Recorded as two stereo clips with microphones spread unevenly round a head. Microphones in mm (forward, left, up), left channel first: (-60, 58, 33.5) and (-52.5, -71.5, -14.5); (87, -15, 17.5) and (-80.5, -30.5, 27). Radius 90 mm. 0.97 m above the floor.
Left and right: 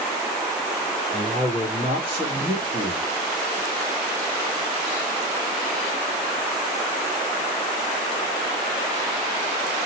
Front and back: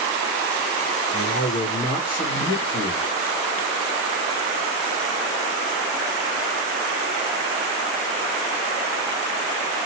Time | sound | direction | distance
1.1 | a man speaking | 25° left | 1.9 m